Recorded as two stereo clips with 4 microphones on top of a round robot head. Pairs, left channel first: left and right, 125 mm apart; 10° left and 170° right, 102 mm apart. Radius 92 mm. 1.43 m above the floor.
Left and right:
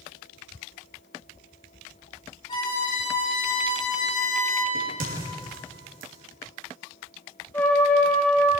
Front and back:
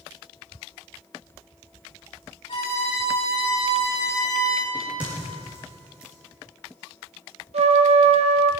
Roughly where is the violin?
Ahead left.